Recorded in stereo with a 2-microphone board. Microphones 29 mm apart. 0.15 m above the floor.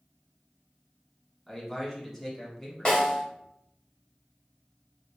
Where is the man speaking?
10° left (ahead or behind), 1.1 m.